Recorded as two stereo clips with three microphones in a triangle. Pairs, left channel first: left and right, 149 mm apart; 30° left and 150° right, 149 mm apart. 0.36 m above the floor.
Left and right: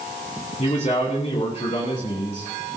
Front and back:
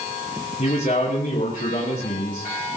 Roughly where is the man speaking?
Ahead left.